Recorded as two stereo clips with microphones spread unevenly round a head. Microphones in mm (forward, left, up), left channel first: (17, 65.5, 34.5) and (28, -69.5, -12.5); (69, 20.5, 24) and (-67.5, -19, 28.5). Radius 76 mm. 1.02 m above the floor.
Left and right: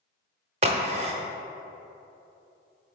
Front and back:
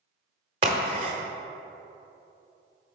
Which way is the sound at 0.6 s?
140° right.